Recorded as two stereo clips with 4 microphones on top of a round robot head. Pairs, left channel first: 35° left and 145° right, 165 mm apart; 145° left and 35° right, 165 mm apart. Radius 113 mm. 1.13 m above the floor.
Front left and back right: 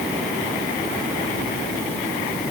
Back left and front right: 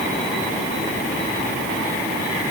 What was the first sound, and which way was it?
Only background noise.